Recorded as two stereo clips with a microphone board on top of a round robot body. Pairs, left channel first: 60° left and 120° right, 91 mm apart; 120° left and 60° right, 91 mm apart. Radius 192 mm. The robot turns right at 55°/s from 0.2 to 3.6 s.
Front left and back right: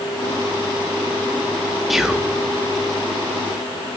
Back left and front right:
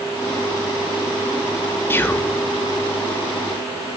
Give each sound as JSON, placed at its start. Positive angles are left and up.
{"t": 1.9, "sound": "whispering", "azimuth_deg": 155, "distance_m": 0.8}